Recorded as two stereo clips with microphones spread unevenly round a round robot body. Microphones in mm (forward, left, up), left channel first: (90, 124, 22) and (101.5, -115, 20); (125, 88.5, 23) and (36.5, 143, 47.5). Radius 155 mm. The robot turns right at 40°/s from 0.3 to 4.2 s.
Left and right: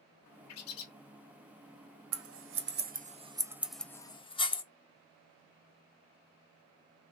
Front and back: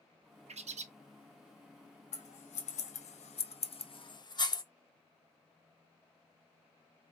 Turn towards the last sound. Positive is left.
turn(degrees=20)